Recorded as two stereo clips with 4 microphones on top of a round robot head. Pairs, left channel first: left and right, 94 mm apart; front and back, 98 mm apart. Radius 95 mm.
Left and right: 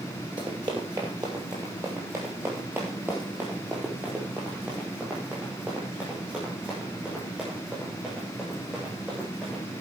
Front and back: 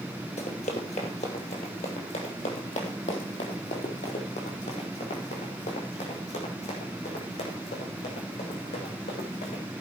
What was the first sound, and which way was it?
Running footsteps, 30° right.